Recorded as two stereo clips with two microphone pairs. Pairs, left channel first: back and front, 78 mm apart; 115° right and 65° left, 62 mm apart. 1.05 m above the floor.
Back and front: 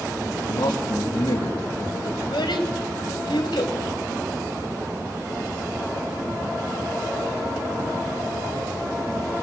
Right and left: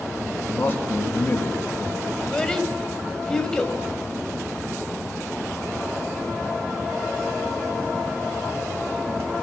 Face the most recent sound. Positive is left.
turn(degrees=165)